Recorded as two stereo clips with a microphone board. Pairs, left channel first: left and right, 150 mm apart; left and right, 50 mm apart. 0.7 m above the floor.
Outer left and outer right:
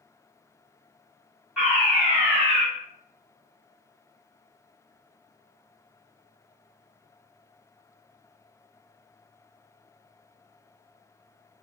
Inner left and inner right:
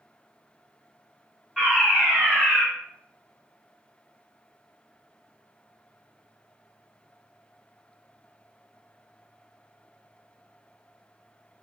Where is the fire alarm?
10° right (ahead or behind), 1.4 m.